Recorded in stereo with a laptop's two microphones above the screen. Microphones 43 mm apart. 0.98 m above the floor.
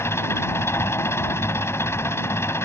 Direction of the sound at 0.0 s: 80° left.